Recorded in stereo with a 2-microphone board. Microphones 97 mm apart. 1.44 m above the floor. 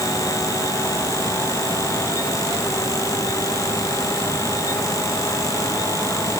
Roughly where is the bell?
No bell in this recording.